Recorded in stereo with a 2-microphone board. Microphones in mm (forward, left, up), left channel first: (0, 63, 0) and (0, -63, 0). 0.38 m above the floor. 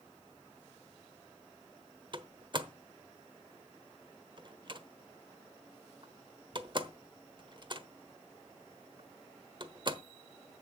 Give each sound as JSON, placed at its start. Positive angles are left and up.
{"t": 2.1, "sound": "a door slam", "side_deg": -40, "distance_m": 1.0}